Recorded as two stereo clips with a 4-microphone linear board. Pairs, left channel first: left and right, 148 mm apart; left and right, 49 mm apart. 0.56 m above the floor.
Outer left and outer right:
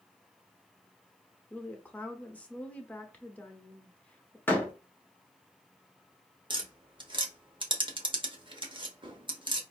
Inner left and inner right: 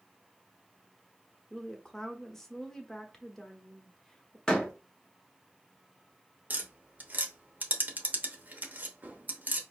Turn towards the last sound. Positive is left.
turn(degrees=-35)  # may be behind; listen again after turning